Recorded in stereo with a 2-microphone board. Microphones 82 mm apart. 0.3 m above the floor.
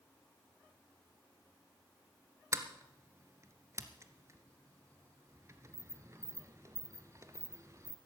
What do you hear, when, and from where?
2.5 s a sliding door: 35° right (ahead or behind), 0.9 m